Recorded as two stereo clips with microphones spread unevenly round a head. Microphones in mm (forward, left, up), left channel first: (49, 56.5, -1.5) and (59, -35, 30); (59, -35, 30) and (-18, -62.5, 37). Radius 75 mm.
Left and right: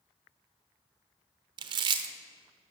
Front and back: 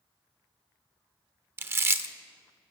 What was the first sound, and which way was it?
Chewing, 105° right.